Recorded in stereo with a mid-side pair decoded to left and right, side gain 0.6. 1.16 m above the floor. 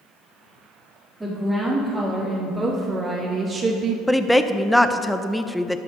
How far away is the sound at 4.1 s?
About 0.5 m.